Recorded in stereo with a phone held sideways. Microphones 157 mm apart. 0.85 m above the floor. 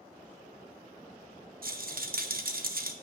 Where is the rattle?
65° right (ahead or behind), 0.5 m.